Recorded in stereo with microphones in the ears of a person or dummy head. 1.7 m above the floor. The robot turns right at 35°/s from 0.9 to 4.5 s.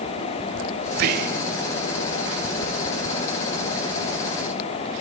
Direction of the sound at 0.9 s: 50° right (ahead or behind).